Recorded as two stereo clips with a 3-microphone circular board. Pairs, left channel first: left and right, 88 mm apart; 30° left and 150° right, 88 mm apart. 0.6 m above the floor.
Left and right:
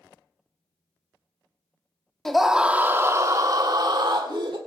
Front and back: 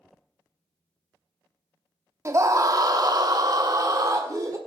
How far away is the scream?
About 1.0 m.